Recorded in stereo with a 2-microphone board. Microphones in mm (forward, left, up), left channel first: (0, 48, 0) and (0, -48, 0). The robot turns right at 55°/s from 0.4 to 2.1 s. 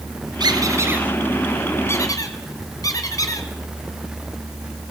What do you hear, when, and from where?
0.4 s a squeak: 50° right (ahead or behind), 2.5 m; by 3.5 s 40° left (ahead or behind), 2.5 m